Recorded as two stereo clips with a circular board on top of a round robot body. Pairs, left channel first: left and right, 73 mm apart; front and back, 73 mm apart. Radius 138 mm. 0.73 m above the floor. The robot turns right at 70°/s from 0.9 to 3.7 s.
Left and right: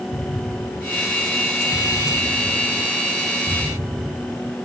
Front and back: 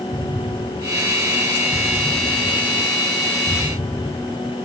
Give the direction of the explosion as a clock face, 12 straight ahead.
8 o'clock.